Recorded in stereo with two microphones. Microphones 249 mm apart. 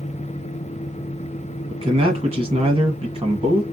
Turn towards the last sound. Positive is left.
turn(degrees=-25)  # may be behind; listen again after turning